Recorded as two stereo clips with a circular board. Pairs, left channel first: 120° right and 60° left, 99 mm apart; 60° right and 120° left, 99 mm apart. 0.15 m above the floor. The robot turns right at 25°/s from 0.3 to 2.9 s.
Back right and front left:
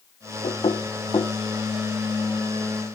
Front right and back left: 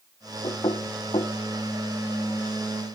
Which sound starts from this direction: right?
Knocking, at 0.4 s.